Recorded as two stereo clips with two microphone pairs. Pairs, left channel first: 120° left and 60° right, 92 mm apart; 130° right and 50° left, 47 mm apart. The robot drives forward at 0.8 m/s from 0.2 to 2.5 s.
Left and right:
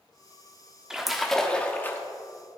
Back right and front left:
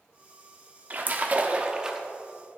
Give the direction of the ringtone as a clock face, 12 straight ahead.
I don't hear a ringtone.